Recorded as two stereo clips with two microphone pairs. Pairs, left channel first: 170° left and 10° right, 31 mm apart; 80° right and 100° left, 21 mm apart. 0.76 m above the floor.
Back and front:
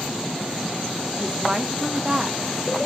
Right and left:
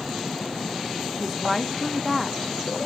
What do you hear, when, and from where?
1.2 s a woman speaking: 10° left, 0.6 m